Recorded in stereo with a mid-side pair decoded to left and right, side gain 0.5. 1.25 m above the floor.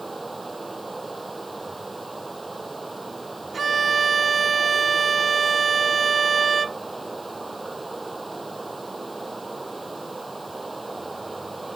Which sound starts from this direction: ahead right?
A violin, at 3.5 s.